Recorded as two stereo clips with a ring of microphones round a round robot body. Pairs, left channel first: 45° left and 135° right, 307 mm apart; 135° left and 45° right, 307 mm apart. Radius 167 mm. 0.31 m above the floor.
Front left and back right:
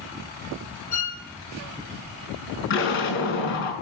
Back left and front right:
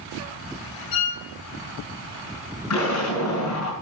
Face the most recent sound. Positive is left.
turn(degrees=95)